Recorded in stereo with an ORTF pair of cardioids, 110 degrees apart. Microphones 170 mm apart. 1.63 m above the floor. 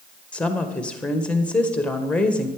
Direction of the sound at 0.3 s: 5° left.